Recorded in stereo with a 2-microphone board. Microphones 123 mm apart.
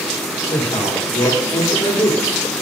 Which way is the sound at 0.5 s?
30° left (ahead or behind).